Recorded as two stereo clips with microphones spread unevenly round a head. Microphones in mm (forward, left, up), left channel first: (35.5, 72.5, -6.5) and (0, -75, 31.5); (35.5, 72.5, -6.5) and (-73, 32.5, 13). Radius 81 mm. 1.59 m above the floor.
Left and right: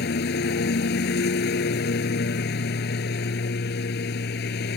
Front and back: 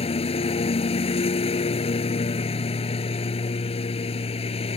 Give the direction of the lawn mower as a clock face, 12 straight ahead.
10 o'clock.